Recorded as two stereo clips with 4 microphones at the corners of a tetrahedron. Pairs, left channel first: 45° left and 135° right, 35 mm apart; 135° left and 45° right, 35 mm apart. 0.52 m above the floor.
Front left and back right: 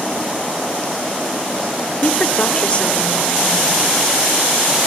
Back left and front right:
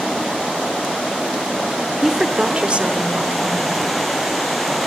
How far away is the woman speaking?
About 1.3 m.